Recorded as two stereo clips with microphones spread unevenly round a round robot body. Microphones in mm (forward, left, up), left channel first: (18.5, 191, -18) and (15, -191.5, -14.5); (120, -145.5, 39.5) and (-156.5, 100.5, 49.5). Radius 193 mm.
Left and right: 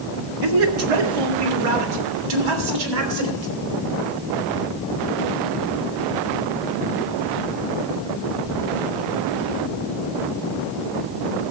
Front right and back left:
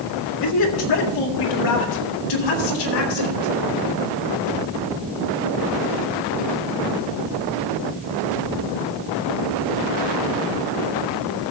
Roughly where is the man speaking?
Right.